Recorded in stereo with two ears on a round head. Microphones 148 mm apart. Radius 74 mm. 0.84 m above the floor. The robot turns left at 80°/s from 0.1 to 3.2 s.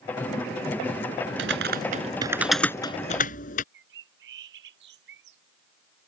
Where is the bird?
75° right (ahead or behind).